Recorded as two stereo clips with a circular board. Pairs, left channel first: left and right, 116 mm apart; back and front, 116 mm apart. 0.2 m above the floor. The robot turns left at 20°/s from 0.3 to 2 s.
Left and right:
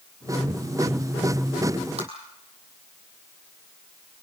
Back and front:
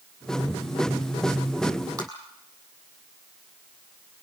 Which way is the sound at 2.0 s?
60° right.